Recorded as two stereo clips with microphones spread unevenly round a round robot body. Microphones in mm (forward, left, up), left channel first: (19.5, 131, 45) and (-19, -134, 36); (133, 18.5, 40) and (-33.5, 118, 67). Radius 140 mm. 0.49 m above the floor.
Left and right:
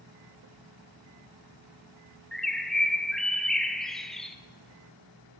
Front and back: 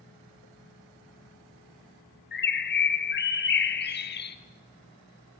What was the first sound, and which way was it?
A bird, 10° right.